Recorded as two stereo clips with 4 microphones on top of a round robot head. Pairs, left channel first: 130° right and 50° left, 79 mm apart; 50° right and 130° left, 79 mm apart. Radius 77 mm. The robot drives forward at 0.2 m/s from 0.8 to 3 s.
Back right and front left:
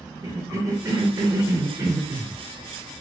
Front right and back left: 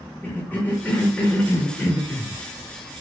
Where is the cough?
15° left, 0.9 m; by 3.0 s 50° left, 0.7 m.